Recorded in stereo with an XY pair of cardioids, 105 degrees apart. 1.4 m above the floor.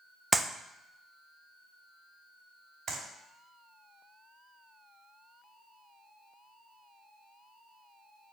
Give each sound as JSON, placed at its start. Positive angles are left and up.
{"t": 0.3, "sound": "a clap", "azimuth_deg": -25, "distance_m": 0.8}
{"t": 2.9, "sound": "a clap", "azimuth_deg": -55, "distance_m": 5.0}